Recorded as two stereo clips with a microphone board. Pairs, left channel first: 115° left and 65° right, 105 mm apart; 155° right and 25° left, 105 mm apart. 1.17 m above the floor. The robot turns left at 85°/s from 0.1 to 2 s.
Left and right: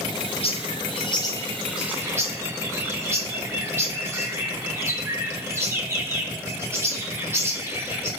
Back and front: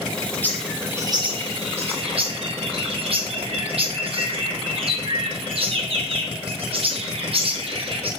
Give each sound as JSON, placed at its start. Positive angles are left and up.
{"t": 0.4, "sound": "a bird", "azimuth_deg": 130, "distance_m": 1.6}